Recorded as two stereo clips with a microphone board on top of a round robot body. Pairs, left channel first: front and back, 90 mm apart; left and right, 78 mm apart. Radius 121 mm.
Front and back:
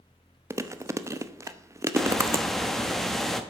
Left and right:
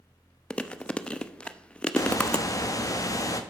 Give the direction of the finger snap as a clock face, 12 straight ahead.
I don't hear a finger snap.